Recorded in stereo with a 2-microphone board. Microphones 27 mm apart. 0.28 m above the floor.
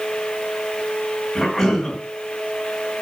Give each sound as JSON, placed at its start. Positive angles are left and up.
{"t": 1.4, "sound": "a cough", "side_deg": 5, "distance_m": 3.0}